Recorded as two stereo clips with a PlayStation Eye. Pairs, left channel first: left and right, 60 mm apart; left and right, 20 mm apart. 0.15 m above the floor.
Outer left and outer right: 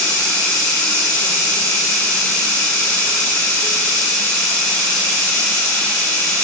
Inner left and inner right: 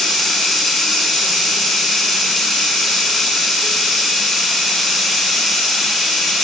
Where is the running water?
20° left (ahead or behind), 5.5 m.